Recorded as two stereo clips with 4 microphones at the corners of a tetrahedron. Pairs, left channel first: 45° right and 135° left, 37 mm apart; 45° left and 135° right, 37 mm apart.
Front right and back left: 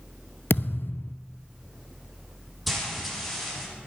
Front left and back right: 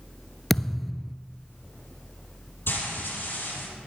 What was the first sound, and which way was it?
A thud, 40° right.